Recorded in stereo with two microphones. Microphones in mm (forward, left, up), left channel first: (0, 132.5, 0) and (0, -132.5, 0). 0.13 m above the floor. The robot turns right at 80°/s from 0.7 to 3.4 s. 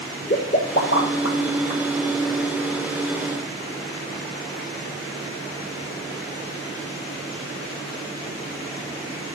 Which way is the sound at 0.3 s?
30° left (ahead or behind).